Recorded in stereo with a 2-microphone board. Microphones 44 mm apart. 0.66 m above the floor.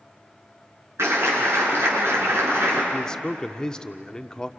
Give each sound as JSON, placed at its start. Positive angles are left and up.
{"t": 1.0, "sound": "a clap", "side_deg": -85, "distance_m": 8.5}
{"t": 2.9, "sound": "a man speaking", "side_deg": 20, "distance_m": 1.1}